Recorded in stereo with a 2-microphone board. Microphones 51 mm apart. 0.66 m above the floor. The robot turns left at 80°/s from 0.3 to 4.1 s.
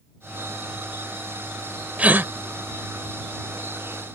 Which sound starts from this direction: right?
A gasp, at 2.0 s.